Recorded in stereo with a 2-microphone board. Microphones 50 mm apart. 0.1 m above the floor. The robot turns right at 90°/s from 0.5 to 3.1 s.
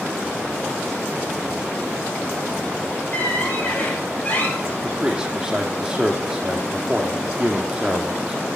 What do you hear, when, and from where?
3.1 s a squeak: 30° left (ahead or behind), 8 m
4.8 s a man speaking: 10° right (ahead or behind), 3.5 m